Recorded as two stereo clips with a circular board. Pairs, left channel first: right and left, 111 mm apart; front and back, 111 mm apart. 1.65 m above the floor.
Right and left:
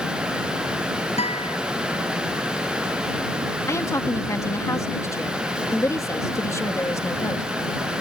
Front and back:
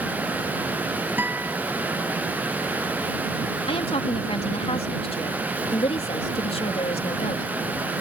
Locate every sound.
1.2 s a guitar: 105° right
3.6 s a woman speaking: 30° right